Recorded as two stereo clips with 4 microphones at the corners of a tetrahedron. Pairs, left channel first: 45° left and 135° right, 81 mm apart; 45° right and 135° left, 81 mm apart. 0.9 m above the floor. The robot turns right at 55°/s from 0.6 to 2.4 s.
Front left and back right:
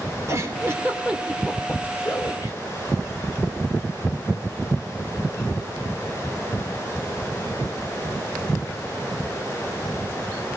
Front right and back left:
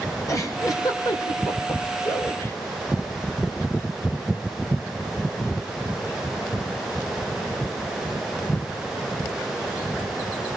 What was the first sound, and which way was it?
A giggle, 85° right.